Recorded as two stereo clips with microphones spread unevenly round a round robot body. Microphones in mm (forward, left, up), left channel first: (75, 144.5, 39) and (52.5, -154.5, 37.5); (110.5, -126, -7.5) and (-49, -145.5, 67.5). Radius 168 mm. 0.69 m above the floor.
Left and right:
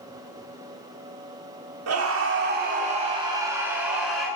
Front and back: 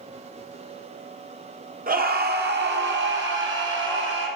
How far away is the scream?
About 1.8 m.